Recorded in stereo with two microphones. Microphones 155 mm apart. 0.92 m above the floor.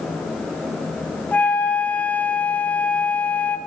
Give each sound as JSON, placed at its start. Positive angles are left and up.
{"t": 1.3, "sound": "a flute", "side_deg": 10, "distance_m": 1.6}